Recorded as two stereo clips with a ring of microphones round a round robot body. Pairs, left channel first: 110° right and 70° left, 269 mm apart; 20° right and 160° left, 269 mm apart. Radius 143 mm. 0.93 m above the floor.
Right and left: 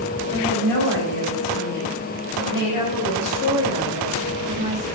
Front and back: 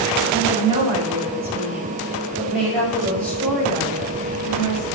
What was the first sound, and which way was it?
A woman speaking, 130° right.